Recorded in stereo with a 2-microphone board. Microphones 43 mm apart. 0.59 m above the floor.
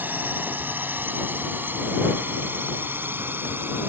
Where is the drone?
40° right (ahead or behind); by 3.9 s 50° right (ahead or behind).